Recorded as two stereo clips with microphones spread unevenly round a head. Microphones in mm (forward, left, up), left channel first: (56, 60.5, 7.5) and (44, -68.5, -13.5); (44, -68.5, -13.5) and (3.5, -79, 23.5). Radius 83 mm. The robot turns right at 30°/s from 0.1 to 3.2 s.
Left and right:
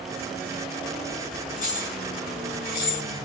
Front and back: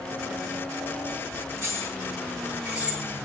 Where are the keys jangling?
65° left, 6 m; by 3.0 s 110° left, 6 m.